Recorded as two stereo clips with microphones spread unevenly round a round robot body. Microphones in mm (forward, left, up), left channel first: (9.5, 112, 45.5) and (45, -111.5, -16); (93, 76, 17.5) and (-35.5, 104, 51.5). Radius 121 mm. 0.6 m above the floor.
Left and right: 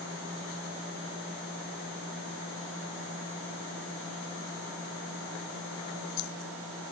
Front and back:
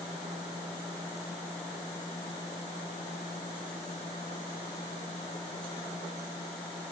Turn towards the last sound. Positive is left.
No sound to turn to.